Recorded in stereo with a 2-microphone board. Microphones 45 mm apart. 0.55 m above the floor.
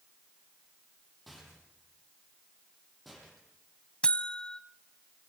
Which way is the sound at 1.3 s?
Centre (ahead or behind).